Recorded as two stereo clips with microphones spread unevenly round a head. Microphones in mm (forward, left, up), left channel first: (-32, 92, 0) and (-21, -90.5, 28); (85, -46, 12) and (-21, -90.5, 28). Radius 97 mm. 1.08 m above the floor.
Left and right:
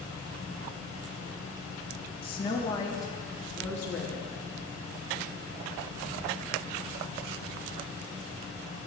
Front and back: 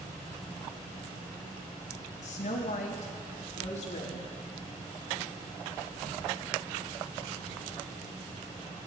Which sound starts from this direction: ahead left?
A woman speaking, at 2.2 s.